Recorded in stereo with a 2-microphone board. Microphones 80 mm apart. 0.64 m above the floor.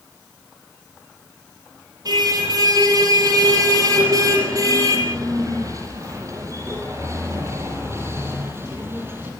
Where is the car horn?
55° right (ahead or behind), 8.5 m; by 9.3 s 30° right (ahead or behind), 7 m.